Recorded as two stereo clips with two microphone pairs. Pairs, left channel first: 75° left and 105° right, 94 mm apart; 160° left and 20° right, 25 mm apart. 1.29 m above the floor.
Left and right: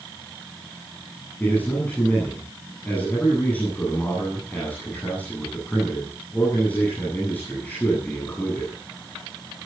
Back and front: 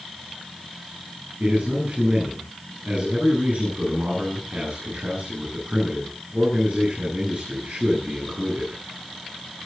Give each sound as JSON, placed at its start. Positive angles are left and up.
{"t": 1.4, "sound": "a man speaking", "azimuth_deg": 0, "distance_m": 9.5}